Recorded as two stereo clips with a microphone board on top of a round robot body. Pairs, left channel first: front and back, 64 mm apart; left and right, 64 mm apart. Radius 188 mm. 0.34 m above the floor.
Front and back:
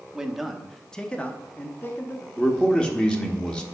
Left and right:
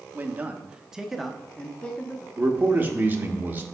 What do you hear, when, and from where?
0.1 s a man speaking: 110° right, 1.1 m; by 2.3 s 35° left, 1.2 m
2.4 s a man speaking: 60° right, 1.4 m